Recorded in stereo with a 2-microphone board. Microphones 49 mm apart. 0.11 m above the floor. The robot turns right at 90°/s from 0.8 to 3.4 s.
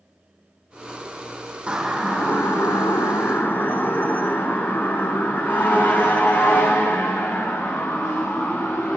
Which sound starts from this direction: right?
A siren, at 1.7 s.